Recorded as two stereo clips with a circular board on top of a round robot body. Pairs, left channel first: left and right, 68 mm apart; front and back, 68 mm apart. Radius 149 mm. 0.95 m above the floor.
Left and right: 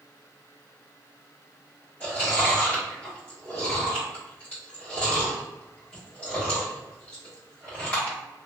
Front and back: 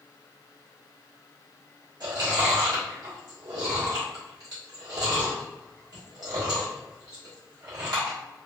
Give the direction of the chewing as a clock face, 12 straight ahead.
7 o'clock.